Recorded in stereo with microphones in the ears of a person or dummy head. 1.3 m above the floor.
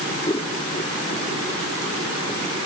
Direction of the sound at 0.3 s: 20° left (ahead or behind).